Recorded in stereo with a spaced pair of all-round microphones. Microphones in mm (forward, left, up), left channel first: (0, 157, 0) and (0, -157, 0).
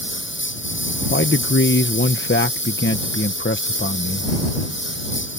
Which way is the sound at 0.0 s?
35° left (ahead or behind).